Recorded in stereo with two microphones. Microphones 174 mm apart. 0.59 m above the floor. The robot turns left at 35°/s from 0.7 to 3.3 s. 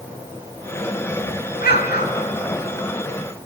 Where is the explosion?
65° left (ahead or behind), 1.6 m; by 2.3 s 60° left (ahead or behind), 1.6 m.